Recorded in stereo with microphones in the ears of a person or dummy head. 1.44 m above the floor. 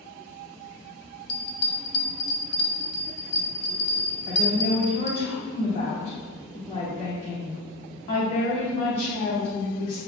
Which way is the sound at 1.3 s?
40° left (ahead or behind).